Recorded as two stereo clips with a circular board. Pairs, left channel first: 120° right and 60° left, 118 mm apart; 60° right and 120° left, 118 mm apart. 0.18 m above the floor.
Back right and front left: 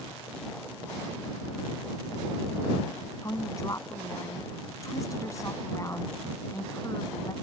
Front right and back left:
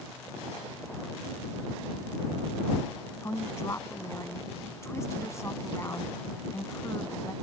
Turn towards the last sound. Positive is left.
turn(degrees=-95)